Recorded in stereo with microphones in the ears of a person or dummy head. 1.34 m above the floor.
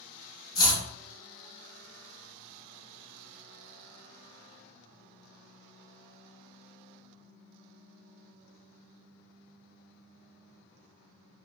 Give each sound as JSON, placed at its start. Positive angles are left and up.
{"t": 0.6, "sound": "chopping", "side_deg": 20, "distance_m": 0.7}